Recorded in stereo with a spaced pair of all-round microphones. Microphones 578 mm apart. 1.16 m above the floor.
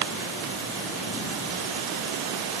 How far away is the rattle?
I don't hear a rattle.